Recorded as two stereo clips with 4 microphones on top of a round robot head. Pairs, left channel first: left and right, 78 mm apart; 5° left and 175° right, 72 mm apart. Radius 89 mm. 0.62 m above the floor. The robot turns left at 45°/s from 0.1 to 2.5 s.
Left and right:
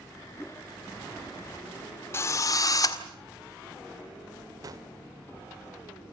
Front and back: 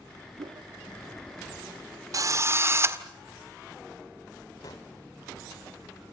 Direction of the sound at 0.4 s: Straight behind.